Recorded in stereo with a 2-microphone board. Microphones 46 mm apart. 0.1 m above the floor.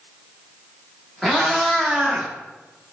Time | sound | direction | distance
1.2 | a cat meowing | 10° left (ahead or behind) | 1.6 m